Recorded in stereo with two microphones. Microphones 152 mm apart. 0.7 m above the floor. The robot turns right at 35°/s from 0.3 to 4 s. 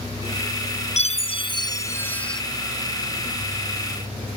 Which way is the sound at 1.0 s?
125° left.